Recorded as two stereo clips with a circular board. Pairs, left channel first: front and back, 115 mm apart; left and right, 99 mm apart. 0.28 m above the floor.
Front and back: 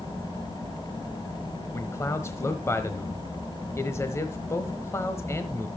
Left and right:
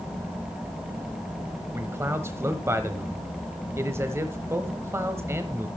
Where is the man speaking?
45° right, 1.1 m.